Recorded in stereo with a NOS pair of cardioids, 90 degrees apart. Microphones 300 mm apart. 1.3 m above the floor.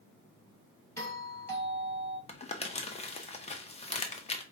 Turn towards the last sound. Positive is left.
turn(degrees=20)